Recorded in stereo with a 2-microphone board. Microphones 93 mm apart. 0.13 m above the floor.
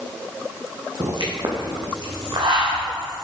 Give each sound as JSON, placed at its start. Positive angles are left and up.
{"t": 1.0, "sound": "a pop", "side_deg": -55, "distance_m": 2.5}